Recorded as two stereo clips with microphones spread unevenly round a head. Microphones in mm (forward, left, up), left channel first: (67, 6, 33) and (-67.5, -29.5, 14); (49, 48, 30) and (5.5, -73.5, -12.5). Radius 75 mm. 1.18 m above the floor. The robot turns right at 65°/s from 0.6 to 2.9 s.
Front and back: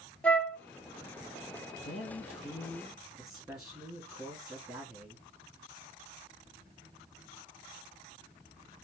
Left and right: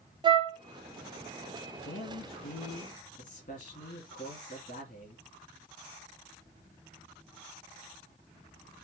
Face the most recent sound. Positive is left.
turn(degrees=110)